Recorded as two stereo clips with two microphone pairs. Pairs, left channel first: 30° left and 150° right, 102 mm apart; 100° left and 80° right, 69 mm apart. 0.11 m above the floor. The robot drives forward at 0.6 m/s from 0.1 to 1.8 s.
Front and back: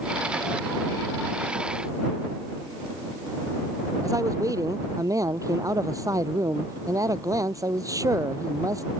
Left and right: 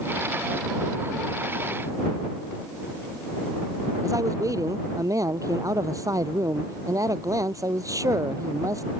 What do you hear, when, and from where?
4.0 s a man speaking: 100° right